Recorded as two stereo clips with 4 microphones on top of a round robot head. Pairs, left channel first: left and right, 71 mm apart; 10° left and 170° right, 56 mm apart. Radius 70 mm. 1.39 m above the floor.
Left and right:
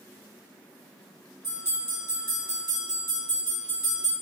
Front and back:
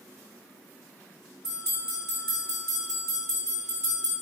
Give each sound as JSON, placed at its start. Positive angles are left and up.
{"t": 1.4, "sound": "a bell", "azimuth_deg": -100, "distance_m": 1.9}